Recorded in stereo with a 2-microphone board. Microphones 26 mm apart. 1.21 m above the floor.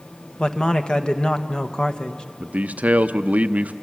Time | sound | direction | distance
0.4 | a man speaking | 30° left (ahead or behind) | 1.4 m
2.4 | a man speaking | 80° right | 0.7 m